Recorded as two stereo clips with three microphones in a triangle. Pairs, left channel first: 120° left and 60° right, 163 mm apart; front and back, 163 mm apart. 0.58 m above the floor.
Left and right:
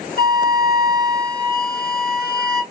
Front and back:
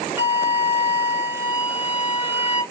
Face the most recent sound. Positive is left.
turn(degrees=100)